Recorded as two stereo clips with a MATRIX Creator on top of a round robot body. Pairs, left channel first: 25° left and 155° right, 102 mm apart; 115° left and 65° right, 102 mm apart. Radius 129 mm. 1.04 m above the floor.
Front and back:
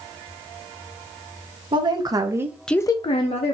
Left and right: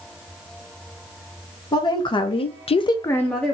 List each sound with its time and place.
1.7 s a woman speaking: 160° left, 1.4 m; by 3.5 s 25° left, 1.1 m